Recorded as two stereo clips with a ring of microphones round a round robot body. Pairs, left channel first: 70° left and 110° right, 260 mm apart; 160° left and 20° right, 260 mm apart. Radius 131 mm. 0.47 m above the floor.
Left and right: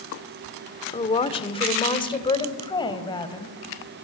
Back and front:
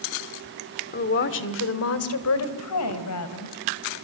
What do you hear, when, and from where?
0.9 s a woman speaking: 125° left, 1.5 m; by 3.5 s 140° left, 3.5 m